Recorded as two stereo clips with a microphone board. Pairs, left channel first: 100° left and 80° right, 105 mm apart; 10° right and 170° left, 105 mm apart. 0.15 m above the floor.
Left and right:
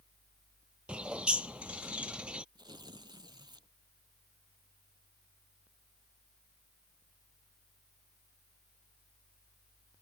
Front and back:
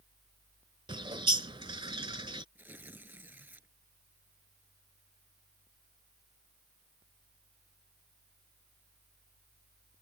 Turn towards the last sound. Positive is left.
turn(degrees=-120)